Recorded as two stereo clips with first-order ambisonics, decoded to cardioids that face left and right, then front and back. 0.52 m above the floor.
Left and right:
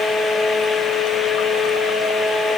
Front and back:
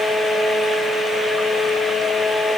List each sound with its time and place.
Only background noise.